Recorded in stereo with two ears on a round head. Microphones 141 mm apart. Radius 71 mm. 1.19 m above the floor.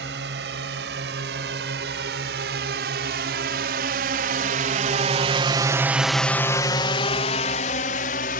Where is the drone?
80° right; by 8.4 s 60° left (ahead or behind).